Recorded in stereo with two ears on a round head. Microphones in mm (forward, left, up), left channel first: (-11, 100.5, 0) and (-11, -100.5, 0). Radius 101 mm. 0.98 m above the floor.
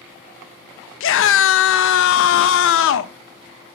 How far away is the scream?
About 0.7 m.